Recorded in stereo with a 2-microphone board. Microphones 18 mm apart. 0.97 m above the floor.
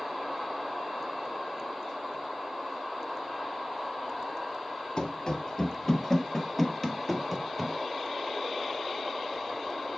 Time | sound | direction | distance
5.0 | running footsteps | 45° left (ahead or behind) | 1.3 m